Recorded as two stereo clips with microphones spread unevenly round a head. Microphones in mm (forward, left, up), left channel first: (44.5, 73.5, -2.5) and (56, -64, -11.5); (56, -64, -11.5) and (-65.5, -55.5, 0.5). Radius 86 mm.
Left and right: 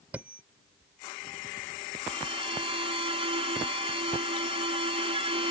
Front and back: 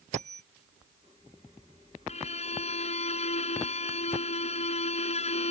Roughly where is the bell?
Behind.